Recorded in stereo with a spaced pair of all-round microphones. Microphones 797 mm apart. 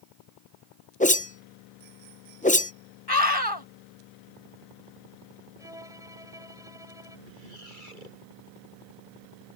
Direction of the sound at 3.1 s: 30° left (ahead or behind).